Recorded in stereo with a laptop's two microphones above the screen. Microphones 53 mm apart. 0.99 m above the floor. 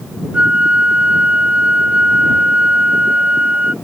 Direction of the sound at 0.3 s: 25° right (ahead or behind).